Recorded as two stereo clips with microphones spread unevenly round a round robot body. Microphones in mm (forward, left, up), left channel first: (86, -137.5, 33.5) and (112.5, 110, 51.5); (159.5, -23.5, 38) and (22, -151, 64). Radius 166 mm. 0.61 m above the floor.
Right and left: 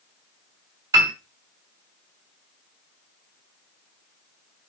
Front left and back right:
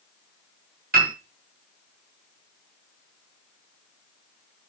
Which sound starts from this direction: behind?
A piano, at 0.9 s.